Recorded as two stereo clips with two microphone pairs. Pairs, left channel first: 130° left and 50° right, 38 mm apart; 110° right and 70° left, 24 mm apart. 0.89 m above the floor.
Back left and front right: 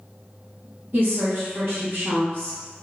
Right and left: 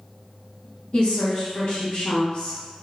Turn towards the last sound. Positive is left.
turn(degrees=-80)